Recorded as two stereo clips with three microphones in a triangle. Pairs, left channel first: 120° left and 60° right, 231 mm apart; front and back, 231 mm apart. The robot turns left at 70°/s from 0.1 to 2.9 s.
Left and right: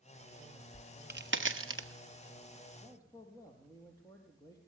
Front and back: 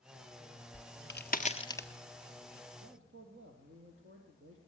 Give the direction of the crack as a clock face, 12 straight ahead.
12 o'clock.